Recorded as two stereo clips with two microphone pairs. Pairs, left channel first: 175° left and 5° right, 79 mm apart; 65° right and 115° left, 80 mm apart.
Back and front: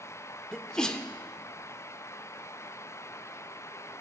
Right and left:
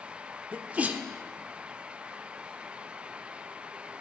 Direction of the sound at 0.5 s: 110° left.